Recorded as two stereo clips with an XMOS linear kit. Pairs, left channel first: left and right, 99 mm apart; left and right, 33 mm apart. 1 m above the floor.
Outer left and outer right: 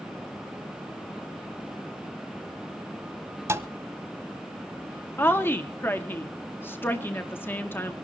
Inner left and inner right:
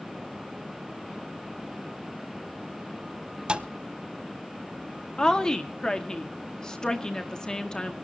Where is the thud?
30° right (ahead or behind), 0.9 m.